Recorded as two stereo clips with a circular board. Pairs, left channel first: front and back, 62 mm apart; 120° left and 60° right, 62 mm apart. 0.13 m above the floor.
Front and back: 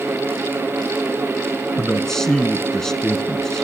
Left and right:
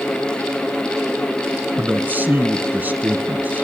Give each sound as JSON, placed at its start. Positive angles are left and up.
{"t": 1.8, "sound": "a man speaking", "azimuth_deg": -75, "distance_m": 1.1}